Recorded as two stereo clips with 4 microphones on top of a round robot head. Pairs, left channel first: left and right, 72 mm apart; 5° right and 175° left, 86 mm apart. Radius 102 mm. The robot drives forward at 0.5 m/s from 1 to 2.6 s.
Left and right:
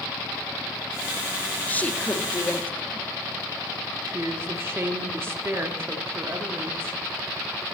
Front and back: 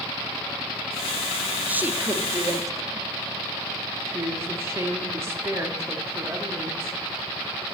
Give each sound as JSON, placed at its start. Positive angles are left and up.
{"t": 1.7, "sound": "a woman speaking", "azimuth_deg": 125, "distance_m": 1.1}
{"t": 4.1, "sound": "a woman speaking", "azimuth_deg": -135, "distance_m": 1.3}